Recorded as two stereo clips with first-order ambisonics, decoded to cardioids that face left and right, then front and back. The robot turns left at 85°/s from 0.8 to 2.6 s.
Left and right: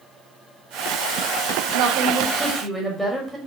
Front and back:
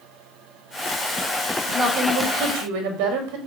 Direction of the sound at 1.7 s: 105° right.